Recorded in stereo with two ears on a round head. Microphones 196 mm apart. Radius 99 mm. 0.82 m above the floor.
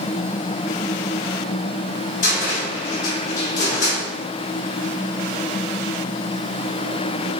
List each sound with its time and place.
2.2 s a cupboard door: 35° left (ahead or behind), 3 m